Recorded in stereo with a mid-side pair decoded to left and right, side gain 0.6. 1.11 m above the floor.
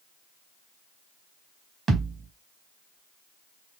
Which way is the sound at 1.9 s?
40° right.